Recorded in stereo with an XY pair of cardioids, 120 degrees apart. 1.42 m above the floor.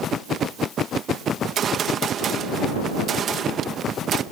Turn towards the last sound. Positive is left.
turn(degrees=-50)